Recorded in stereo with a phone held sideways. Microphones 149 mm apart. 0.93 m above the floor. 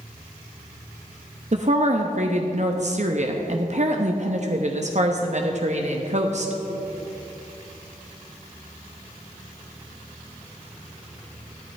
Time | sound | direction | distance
1.5 | a woman speaking | 50° right (ahead or behind) | 0.8 m